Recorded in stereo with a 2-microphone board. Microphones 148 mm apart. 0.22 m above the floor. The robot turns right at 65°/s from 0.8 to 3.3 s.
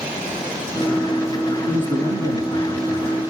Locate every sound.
1.7 s a man speaking: 120° right, 3 m; by 3.2 s 25° right, 3 m